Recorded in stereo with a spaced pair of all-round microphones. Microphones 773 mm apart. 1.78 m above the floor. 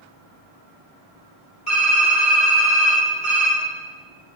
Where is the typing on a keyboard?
75° left (ahead or behind), 5.5 m.